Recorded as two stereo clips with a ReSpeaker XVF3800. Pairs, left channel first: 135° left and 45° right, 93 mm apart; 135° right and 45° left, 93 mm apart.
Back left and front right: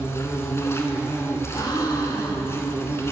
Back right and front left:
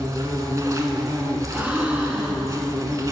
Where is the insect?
85° left, 0.8 m.